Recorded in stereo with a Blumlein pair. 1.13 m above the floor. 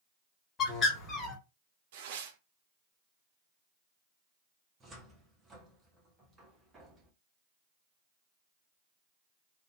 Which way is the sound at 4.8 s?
15° right.